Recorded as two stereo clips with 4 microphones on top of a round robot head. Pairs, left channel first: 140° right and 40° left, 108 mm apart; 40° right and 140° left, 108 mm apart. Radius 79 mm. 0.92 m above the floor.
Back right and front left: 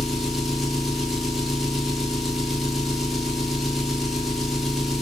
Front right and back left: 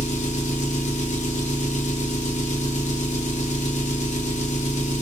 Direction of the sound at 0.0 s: 50° right.